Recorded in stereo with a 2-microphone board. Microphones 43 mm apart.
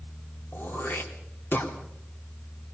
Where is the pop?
No pop in this recording.